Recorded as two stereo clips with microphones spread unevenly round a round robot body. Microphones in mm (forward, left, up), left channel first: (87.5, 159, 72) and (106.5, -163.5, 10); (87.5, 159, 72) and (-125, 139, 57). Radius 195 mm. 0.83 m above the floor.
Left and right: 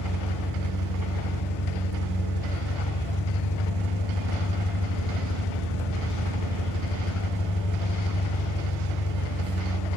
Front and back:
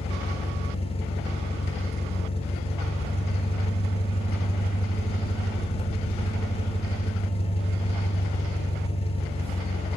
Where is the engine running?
70° left, 1.1 m.